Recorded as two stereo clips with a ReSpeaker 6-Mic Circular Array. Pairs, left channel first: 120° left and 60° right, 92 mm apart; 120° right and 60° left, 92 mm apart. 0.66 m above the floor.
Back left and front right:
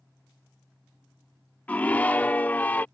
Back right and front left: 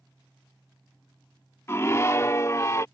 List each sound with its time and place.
1.7 s a scream: 170° right